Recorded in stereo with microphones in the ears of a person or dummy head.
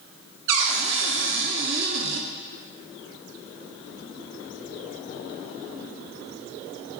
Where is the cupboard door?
65° right (ahead or behind), 1.1 m.